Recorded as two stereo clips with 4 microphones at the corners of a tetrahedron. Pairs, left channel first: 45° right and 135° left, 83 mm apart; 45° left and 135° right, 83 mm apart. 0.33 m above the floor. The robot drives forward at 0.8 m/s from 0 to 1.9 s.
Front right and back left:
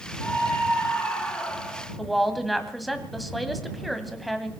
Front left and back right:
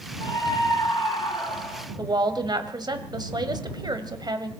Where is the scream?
20° left, 5 m; by 1.9 s 30° left, 3.5 m.